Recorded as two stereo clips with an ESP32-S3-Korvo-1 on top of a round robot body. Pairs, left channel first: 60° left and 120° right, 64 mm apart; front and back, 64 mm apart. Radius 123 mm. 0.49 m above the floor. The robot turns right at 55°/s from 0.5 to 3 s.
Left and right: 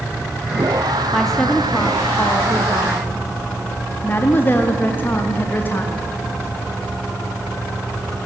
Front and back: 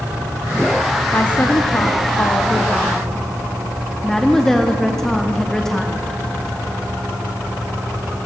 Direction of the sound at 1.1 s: 30° right.